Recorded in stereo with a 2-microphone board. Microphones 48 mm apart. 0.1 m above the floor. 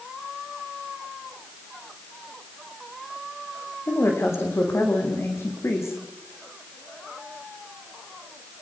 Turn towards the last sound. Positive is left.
turn(degrees=70)  # may be behind; listen again after turning